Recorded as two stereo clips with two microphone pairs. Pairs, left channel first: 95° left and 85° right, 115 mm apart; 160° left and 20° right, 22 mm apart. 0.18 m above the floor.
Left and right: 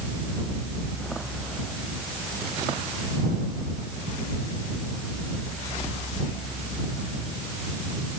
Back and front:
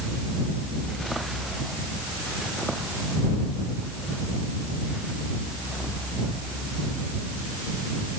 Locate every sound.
Only background noise.